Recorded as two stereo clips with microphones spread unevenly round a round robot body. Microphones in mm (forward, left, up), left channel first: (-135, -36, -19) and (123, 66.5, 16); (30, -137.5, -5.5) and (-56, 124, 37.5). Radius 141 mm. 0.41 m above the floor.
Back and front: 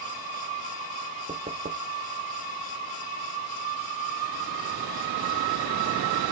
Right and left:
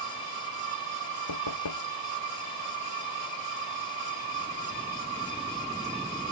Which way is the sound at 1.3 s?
50° right.